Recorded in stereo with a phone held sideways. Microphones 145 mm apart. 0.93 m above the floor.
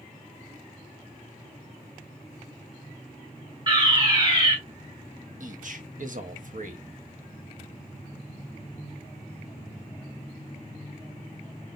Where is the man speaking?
60° right (ahead or behind), 1.2 m.